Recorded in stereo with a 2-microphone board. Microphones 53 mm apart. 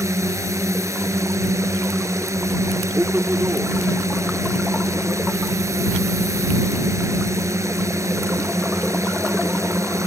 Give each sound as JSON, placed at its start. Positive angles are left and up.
{"t": 0.0, "sound": "a drone", "side_deg": -70}
{"t": 2.9, "sound": "a man speaking", "side_deg": -55}